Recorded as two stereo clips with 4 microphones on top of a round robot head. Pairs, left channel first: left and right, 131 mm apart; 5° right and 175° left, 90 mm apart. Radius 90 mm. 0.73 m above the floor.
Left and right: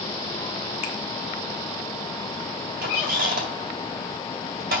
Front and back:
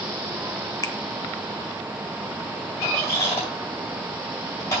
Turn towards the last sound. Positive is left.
turn(degrees=-75)